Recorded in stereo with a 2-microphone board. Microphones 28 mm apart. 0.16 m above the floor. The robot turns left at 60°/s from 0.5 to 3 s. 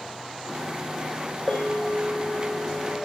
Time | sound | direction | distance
1.5 | a bell | 170° right | 1.5 m